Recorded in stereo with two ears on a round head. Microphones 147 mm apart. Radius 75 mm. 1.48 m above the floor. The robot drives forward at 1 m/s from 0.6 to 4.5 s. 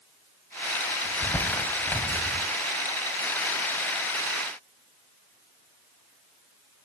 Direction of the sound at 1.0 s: 10° left (ahead or behind).